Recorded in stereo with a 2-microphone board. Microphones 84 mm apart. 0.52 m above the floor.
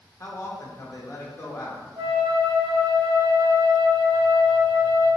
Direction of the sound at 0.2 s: 35° left (ahead or behind).